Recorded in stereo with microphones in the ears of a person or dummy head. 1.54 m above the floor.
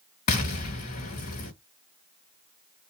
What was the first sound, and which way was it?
An explosion, 40° left (ahead or behind).